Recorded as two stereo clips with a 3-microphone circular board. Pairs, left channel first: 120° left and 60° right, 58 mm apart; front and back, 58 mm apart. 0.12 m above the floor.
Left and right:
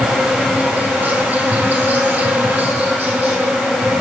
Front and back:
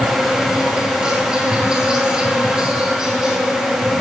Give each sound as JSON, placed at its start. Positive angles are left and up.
{"t": 0.0, "sound": "an insect", "azimuth_deg": -110, "distance_m": 2.0}